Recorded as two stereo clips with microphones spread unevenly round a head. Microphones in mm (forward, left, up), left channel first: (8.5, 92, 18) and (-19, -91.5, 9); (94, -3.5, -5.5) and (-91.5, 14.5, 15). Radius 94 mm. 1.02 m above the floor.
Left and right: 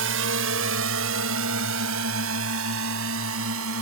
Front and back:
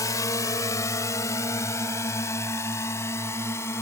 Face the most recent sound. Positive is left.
turn(degrees=-85)